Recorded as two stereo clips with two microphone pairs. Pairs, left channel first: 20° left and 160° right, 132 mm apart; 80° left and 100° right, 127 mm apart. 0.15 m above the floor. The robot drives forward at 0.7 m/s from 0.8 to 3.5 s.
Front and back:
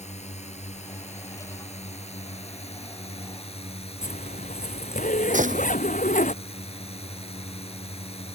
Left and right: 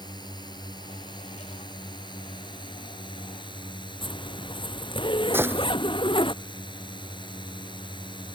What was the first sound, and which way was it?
A drone, 30° left.